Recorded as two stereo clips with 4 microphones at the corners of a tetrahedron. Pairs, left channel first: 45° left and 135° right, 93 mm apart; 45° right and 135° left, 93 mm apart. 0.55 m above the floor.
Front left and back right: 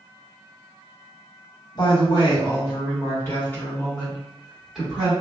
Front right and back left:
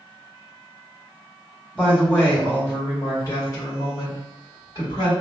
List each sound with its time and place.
1.8 s a woman speaking: 30° left, 1.6 m; by 5.1 s 55° right, 1.7 m